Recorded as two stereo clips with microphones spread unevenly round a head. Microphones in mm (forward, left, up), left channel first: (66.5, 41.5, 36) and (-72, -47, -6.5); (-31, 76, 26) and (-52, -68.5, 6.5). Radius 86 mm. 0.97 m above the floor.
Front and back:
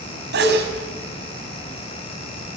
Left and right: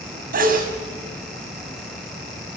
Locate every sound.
0.3 s a sneeze: 120° right, 5.5 m